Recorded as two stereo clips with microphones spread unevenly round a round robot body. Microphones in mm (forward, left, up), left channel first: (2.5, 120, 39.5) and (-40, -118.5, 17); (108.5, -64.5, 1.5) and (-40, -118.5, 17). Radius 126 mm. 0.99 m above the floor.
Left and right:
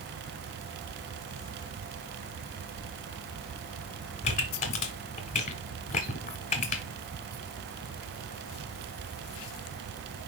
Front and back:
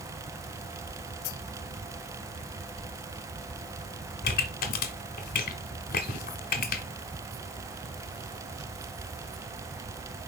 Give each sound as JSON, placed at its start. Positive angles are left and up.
{"t": 4.2, "sound": "a pop", "azimuth_deg": 30, "distance_m": 1.2}